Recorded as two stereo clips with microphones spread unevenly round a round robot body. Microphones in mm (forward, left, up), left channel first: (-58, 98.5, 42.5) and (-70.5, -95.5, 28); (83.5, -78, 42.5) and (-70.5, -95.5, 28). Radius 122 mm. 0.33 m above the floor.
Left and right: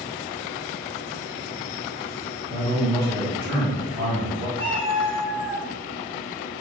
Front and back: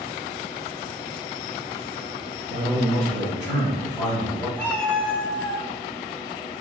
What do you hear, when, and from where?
2.5 s a man speaking: 60° right, 1.8 m
4.6 s a cat meowing: 75° right, 1.5 m